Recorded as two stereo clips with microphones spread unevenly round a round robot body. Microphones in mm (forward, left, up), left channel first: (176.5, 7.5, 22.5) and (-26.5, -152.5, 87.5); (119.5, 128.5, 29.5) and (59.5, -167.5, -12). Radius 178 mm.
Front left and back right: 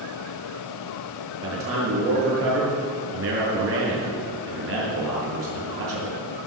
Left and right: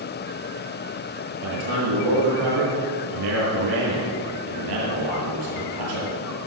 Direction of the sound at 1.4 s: 110° right.